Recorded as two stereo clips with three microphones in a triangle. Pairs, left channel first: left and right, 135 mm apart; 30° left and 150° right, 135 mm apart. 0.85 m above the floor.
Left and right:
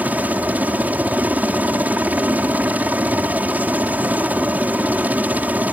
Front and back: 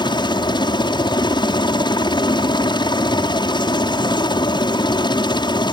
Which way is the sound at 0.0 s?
15° right.